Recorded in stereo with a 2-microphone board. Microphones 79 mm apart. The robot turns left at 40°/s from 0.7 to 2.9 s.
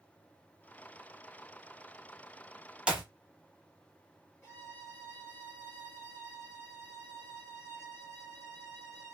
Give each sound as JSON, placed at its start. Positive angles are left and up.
{"t": 2.9, "sound": "a clap", "side_deg": -15, "distance_m": 0.7}
{"t": 4.4, "sound": "a violin", "side_deg": 30, "distance_m": 1.8}